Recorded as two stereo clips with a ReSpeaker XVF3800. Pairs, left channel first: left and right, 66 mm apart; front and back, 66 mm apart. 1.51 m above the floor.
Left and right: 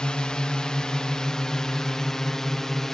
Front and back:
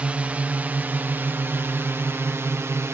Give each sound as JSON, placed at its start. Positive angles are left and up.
{"t": 0.0, "sound": "a drone", "azimuth_deg": 145}